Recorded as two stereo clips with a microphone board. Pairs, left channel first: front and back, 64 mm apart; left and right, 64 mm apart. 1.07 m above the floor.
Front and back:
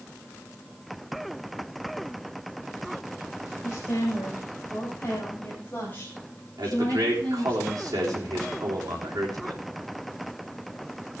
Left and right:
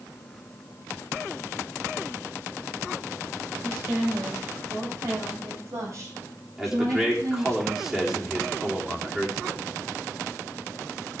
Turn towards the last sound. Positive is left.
turn(degrees=-170)